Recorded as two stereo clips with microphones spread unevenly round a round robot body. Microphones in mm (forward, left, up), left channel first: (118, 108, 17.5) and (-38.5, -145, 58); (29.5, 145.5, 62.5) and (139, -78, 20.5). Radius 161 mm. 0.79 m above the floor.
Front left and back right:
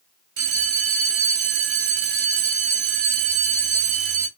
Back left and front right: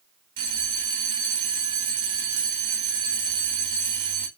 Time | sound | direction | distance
0.4 | a bell | 95° right | 0.8 m